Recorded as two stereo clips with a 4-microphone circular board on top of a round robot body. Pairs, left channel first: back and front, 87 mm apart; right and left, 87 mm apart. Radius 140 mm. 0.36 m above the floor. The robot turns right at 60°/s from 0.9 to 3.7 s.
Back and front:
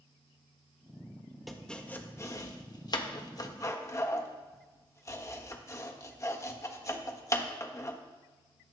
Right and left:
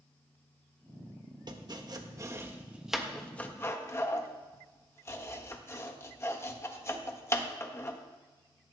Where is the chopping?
90° left, 1.4 m; by 8.0 s 140° right, 1.4 m.